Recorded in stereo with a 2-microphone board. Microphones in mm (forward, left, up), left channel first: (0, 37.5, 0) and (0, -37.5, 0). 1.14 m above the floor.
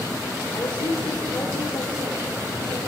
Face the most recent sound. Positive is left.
turn(degrees=80)